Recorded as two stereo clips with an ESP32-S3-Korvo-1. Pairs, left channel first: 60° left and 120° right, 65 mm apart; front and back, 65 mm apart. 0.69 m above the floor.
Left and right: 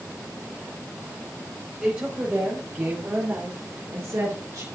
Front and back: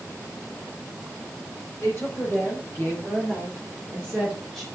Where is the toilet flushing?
I don't hear a toilet flushing.